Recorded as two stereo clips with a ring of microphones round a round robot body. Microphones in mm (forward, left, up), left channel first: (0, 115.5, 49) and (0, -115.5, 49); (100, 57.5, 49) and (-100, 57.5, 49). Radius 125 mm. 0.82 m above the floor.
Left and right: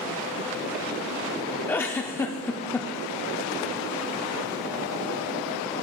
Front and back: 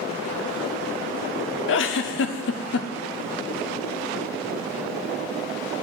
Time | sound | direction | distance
1.7 | a giggle | 10° left | 0.5 m